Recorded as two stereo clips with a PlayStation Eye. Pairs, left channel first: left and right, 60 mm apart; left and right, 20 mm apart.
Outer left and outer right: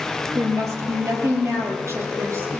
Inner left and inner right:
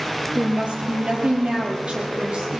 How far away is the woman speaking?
About 3 m.